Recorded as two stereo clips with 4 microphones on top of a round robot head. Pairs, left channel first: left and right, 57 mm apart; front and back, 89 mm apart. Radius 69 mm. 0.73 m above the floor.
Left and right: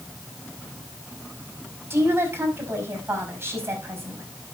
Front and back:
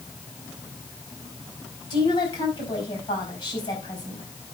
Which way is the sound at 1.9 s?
40° right.